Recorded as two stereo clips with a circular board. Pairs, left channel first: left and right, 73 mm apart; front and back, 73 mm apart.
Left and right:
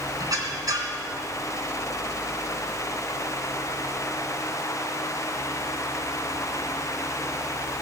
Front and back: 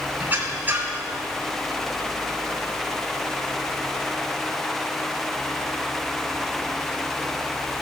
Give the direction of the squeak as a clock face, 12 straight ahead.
4 o'clock.